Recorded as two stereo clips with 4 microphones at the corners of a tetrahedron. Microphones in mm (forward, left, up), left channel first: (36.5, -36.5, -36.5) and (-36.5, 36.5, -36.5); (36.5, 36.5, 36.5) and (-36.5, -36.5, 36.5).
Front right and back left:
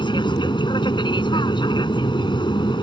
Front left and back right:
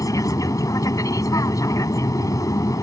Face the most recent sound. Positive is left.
turn(degrees=-10)